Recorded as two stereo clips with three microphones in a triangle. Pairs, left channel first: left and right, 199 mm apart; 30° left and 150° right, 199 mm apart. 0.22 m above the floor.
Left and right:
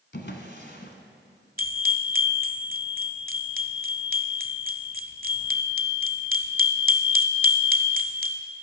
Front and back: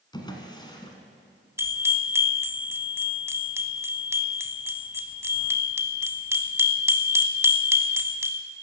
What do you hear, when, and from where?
0.1 s a drawer: 95° left, 1.3 m
1.6 s a bell: 75° right, 0.7 m